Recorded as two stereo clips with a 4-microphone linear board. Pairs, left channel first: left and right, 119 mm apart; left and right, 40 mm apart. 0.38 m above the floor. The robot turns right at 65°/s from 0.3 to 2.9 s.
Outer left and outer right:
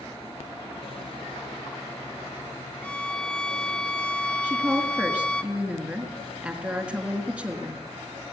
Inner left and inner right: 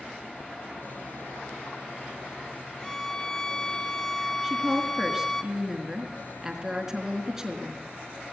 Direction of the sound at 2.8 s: 15° left (ahead or behind).